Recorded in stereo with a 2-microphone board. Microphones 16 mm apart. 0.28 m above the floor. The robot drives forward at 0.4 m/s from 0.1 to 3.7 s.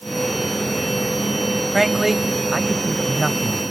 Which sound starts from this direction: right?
A man speaking, at 1.7 s.